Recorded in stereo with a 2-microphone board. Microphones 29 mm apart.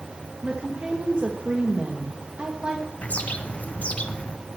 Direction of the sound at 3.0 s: 50° left (ahead or behind).